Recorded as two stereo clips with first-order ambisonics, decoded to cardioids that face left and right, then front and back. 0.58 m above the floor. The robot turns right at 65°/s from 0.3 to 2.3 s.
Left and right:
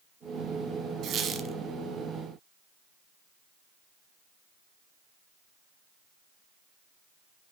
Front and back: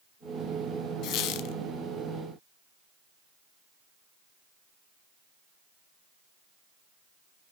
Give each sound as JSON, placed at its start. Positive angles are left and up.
{"t": 1.0, "sound": "a squeak", "azimuth_deg": -40, "distance_m": 0.9}